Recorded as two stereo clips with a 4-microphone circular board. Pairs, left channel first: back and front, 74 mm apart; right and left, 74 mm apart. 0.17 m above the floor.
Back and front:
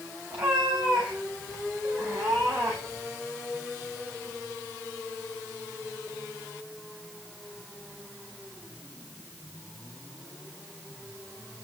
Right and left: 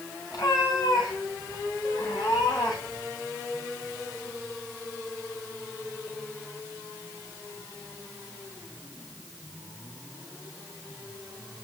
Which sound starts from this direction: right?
A cat meowing, at 0.3 s.